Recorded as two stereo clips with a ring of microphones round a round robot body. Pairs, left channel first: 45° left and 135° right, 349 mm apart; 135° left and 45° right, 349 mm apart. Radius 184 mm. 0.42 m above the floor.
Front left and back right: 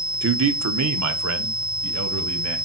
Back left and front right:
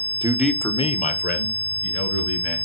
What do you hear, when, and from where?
0.2 s a man speaking: 110° right, 1.0 m; by 2.6 s straight behind, 3 m